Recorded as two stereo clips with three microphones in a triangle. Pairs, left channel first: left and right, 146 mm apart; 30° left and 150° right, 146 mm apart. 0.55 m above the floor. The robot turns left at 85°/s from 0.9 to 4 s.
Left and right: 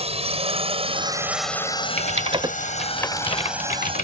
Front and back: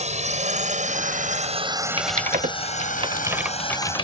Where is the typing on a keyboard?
105° right; by 4.0 s 80° left.